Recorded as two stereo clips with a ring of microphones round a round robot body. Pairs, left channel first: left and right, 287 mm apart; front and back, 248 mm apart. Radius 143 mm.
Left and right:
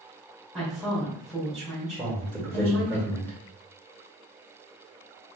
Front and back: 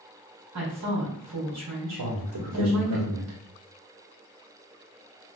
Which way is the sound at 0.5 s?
Straight behind.